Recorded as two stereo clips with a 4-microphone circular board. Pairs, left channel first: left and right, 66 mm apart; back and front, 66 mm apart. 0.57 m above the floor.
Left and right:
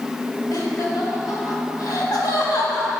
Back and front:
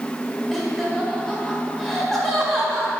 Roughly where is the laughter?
Left.